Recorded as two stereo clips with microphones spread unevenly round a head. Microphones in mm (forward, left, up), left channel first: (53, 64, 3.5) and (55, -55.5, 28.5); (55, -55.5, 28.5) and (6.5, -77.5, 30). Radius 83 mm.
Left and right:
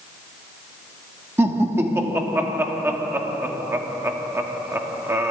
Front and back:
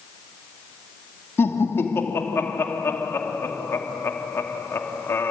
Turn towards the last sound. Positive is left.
turn(degrees=-20)